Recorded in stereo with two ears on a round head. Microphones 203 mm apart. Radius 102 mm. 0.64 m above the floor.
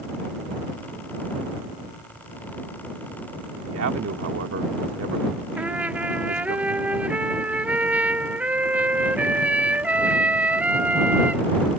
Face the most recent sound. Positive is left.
turn(degrees=-5)  # may be behind; listen again after turning